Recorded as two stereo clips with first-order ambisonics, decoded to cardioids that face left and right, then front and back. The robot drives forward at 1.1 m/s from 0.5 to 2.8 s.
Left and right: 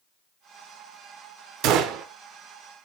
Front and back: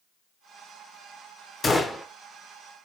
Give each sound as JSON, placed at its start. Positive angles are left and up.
{"t": 1.6, "sound": "a gunshot", "azimuth_deg": -75, "distance_m": 1.0}